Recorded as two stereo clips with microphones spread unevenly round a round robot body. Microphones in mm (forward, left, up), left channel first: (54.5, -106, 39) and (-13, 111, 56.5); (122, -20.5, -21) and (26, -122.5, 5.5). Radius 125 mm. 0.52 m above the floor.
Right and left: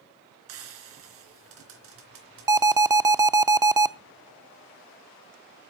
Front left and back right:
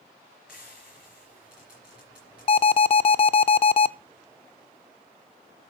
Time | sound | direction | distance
0.5 | frying | 140° left | 3.5 m
2.5 | an alarm | 30° left | 0.6 m